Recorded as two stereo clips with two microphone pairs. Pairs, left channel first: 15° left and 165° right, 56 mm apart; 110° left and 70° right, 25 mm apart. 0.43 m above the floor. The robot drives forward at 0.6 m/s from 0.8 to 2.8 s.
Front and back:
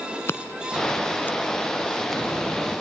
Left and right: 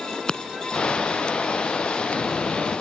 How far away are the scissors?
About 1.0 m.